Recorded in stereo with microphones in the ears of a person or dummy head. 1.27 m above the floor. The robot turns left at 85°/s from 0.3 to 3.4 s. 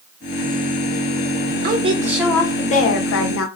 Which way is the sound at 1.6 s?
130° right.